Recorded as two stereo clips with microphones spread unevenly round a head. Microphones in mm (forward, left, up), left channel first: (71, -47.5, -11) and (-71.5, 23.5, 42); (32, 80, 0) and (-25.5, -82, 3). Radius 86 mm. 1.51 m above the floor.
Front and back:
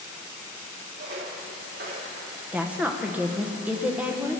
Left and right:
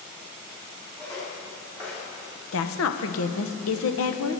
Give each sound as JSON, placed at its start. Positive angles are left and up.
{"t": 1.0, "sound": "footsteps", "azimuth_deg": 140, "distance_m": 4.5}
{"t": 2.5, "sound": "a woman speaking", "azimuth_deg": 75, "distance_m": 1.0}